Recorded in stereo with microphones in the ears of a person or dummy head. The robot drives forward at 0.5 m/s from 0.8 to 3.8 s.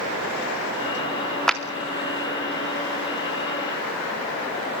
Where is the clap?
5° left (ahead or behind), 0.9 m; by 1.6 s centre (ahead or behind), 1.0 m.